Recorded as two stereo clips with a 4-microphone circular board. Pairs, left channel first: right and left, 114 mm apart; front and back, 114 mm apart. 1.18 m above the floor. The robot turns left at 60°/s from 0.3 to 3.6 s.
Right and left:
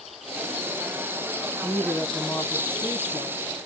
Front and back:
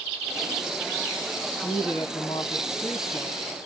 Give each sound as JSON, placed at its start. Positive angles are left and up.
{"t": 1.6, "sound": "a woman speaking", "azimuth_deg": 0, "distance_m": 1.0}